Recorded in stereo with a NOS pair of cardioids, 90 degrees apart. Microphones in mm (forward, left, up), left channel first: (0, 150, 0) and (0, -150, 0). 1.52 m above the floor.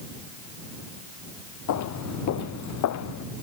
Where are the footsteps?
70° left.